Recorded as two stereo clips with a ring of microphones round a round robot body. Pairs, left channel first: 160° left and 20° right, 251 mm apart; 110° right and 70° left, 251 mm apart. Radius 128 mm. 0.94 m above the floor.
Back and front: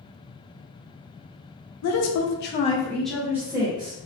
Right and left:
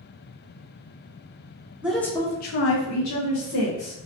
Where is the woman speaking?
150° left, 0.7 m; by 4.0 s 90° right, 1.4 m.